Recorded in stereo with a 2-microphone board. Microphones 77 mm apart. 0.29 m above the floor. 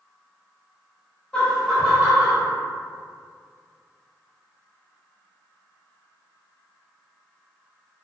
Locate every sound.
1.3 s laughter: 20° left (ahead or behind), 0.9 m; by 2.4 s 35° right (ahead or behind), 1.1 m